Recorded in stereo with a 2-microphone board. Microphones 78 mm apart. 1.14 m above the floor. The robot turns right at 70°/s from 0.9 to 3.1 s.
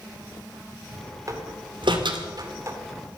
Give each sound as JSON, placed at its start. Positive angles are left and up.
{"t": 1.3, "sound": "a door slam", "side_deg": -45, "distance_m": 2.0}